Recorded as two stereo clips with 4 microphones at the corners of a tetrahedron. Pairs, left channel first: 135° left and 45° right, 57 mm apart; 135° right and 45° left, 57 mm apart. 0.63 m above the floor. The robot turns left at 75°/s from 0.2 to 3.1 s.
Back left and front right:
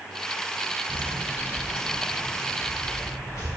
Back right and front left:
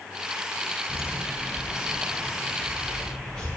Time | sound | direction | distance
0.9 | footsteps | 110° right | 0.8 m